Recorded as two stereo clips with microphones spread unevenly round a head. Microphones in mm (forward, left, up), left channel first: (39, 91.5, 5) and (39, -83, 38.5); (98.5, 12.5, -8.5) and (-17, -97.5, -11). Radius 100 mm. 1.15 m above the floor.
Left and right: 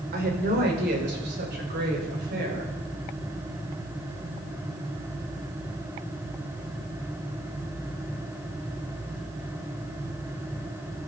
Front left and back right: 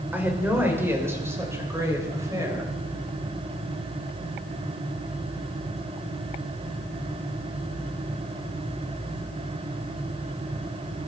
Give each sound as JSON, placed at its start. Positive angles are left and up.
{"t": 0.1, "sound": "a woman speaking", "azimuth_deg": -60, "distance_m": 5.0}